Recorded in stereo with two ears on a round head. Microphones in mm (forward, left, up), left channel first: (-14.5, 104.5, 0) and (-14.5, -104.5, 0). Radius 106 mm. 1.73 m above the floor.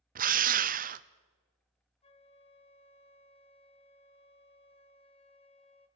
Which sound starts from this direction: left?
A flute, at 2.0 s.